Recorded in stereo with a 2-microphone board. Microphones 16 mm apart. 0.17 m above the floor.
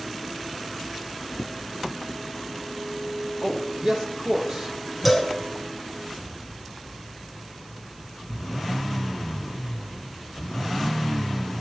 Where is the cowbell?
15° right (ahead or behind), 2.5 m.